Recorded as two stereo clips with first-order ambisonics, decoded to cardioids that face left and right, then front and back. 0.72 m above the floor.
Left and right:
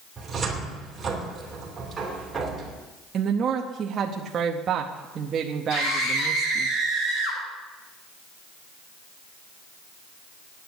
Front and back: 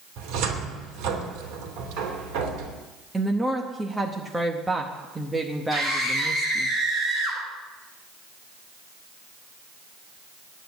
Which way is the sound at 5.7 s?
90° left.